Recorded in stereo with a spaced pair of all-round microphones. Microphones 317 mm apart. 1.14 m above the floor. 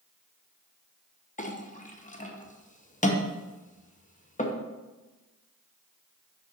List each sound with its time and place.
1.4 s a clink: 25° left (ahead or behind), 0.7 m